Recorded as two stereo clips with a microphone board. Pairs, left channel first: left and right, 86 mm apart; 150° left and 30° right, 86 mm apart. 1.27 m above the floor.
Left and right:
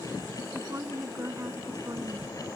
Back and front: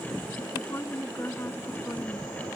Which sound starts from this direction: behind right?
A woman speaking, at 0.5 s.